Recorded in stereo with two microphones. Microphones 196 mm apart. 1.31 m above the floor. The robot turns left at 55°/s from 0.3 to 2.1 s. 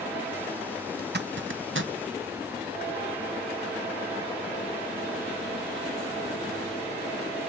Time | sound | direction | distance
1.0 | a zipper | 50° right (ahead or behind) | 0.8 m